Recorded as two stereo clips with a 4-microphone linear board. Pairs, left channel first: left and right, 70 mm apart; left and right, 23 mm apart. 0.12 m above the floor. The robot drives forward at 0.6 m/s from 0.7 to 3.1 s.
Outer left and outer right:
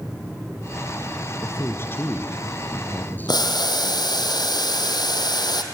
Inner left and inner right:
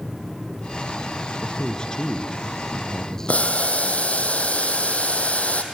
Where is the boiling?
75° left (ahead or behind), 1.6 m.